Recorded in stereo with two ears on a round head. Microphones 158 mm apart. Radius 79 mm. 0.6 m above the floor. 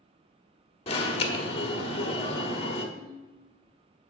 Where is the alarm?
30° left (ahead or behind), 1.3 m.